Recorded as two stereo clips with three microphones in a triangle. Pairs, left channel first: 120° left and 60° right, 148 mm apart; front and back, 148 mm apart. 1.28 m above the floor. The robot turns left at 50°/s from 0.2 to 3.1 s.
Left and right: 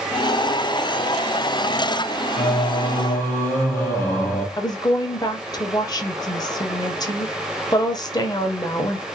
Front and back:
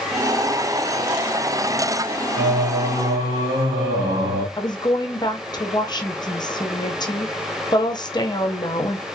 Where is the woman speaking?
55° left, 0.7 m.